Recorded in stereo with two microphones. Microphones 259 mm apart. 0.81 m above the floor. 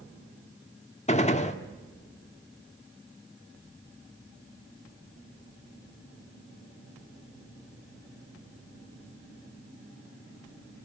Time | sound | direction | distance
1.1 | a gunshot | 25° left (ahead or behind) | 1.4 m